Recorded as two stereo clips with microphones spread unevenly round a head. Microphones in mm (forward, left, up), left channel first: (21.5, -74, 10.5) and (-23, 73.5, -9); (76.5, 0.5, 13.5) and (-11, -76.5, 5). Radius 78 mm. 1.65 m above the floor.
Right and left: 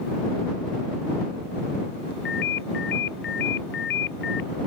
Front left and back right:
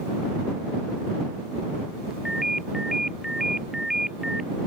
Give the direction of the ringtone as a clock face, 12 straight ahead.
2 o'clock.